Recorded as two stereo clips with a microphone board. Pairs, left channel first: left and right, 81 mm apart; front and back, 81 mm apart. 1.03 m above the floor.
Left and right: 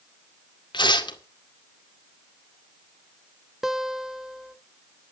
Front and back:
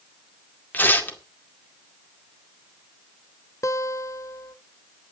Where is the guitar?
10° right, 0.7 m.